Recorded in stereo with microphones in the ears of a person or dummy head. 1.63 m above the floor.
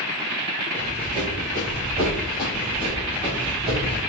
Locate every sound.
0.7 s running footsteps: 20° right (ahead or behind), 1.8 m; by 4.0 s 10° left (ahead or behind), 3 m